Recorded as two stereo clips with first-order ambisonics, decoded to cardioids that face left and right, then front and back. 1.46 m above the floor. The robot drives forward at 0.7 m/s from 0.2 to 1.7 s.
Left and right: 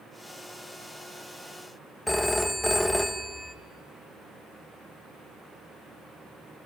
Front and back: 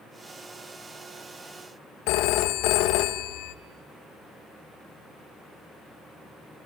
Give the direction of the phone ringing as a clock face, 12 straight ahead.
12 o'clock.